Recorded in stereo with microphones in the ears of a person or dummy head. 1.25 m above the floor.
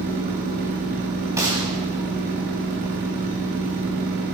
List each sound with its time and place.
0.0 s a machine running: 50° right (ahead or behind), 1.0 m
1.4 s a gunshot: 20° right (ahead or behind), 2 m